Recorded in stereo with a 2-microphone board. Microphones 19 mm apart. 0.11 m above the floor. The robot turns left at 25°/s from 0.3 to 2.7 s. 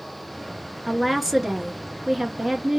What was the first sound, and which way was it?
A woman speaking, 5° right.